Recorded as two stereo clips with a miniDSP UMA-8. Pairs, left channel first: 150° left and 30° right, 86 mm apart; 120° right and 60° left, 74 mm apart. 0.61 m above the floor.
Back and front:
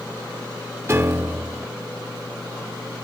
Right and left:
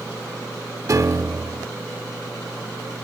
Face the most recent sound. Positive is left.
turn(degrees=25)